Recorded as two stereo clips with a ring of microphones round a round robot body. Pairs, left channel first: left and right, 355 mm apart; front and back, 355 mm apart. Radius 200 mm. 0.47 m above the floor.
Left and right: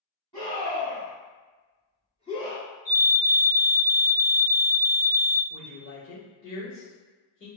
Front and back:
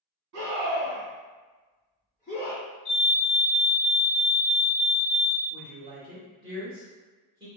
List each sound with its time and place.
0.3 s a scream: 160° left, 1.6 m; by 2.6 s 25° left, 1.7 m
2.9 s a fire alarm: 25° left, 1.7 m
5.5 s a woman speaking: 110° left, 1.6 m